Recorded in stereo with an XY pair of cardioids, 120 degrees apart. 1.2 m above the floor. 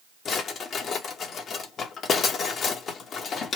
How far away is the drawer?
About 1.0 m.